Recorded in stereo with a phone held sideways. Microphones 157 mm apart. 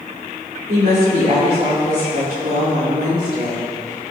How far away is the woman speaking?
About 2.5 m.